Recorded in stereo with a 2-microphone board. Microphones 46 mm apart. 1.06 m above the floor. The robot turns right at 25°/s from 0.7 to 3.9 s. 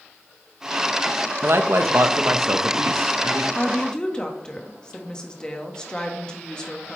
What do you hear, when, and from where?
1.4 s a man speaking: 120° right, 0.9 m; by 3.5 s 70° right, 0.9 m
3.5 s a woman speaking: 25° left (ahead or behind), 1.6 m; by 7.0 s 20° left (ahead or behind), 1.6 m